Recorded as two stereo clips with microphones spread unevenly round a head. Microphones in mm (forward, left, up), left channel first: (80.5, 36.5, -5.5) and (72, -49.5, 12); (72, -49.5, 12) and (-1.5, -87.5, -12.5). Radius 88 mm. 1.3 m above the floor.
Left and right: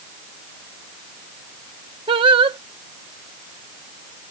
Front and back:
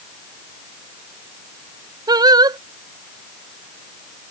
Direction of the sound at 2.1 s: 110° right.